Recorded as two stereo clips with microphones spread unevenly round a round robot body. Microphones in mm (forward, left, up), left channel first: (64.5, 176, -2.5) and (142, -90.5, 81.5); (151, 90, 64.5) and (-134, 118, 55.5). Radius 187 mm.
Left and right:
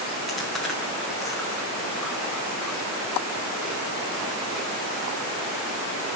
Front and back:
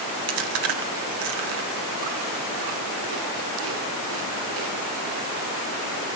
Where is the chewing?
160° right, 1.1 m.